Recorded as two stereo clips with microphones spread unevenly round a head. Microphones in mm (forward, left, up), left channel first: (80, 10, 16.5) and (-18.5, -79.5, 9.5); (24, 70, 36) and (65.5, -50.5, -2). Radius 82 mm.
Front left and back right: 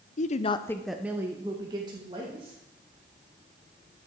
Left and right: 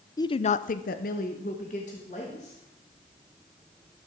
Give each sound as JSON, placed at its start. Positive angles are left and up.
{"t": 0.2, "sound": "a woman speaking", "azimuth_deg": 40, "distance_m": 0.6}